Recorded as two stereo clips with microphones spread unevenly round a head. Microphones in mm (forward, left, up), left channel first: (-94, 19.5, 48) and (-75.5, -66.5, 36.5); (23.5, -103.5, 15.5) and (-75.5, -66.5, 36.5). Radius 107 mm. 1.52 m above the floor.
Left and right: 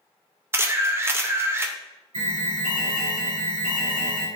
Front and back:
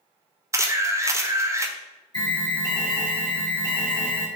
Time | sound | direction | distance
0.5 | a camera shutter | 145° right | 0.6 m
2.1 | an alarm | 75° right | 1.8 m